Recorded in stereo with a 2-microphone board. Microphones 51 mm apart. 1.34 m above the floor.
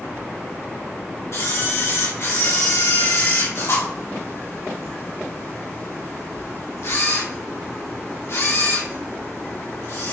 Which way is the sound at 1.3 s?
65° left (ahead or behind).